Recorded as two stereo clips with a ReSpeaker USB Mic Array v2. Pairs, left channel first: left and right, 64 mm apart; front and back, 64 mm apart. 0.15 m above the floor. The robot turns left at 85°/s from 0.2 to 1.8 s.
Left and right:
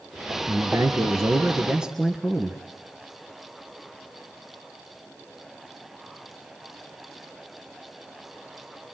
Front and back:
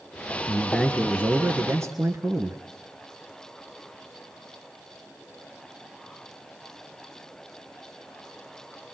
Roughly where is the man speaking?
Ahead right.